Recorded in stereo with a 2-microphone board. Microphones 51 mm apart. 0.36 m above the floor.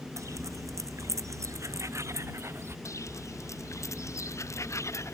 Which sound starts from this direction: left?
Footsteps, at 2.9 s.